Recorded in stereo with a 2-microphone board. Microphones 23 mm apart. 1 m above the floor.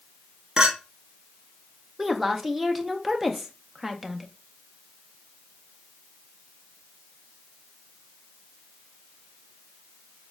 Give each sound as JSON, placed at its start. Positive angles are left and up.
{"t": 0.6, "sound": "a clink", "side_deg": -25, "distance_m": 0.8}
{"t": 2.0, "sound": "a woman speaking", "side_deg": -10, "distance_m": 0.6}